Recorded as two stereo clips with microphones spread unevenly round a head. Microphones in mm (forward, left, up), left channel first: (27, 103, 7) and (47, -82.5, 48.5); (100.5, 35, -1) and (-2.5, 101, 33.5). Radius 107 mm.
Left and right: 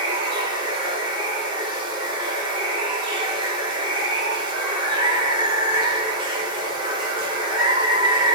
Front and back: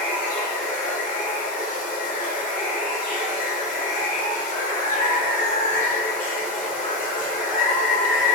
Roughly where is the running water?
Ahead right.